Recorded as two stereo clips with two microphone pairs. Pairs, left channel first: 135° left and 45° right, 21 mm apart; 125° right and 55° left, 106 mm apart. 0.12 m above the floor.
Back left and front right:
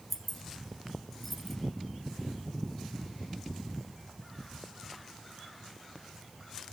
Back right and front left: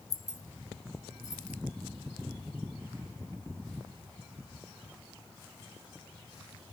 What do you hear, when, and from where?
0.1 s keys jangling: 155° right, 1.3 m